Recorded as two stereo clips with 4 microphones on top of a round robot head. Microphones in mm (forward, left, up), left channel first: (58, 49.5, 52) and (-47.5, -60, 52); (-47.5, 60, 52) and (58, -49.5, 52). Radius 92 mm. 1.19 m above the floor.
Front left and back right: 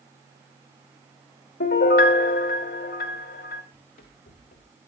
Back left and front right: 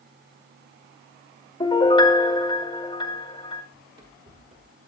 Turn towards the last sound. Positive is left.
turn(degrees=0)